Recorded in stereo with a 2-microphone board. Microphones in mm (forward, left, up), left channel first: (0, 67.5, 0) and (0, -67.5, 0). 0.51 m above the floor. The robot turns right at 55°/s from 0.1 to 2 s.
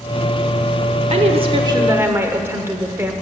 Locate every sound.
1.1 s a woman speaking: 70° right, 1.1 m; by 3.1 s 20° right, 1.1 m